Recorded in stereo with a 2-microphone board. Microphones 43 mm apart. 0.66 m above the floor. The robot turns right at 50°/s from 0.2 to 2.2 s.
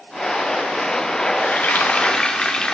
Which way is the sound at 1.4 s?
120° left.